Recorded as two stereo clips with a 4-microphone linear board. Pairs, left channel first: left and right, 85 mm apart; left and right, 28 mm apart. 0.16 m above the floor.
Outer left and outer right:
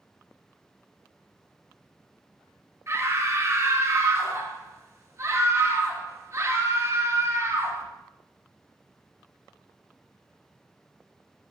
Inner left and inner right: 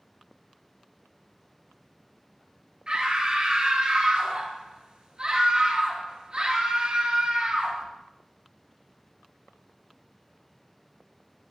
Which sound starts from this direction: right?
A scream, at 2.9 s.